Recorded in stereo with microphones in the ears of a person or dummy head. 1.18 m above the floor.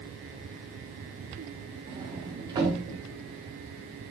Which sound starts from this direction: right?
A sliding door, at 1.9 s.